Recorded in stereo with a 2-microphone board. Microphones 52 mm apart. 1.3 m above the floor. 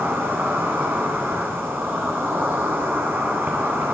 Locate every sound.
0.0 s an insect: 45° right (ahead or behind), 9 m